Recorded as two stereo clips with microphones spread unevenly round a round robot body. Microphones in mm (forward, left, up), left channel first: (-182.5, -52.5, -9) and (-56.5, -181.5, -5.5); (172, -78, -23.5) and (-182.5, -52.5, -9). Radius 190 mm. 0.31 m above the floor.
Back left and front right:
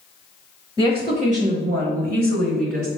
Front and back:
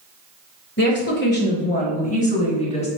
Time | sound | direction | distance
0.8 | a woman speaking | straight ahead | 0.9 m